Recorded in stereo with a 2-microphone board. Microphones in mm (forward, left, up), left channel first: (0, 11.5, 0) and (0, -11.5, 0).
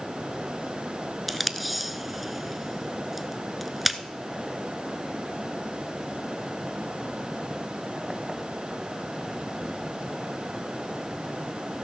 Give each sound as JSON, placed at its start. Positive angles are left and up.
{"t": 1.3, "sound": "tape being pulled", "side_deg": 0, "distance_m": 0.6}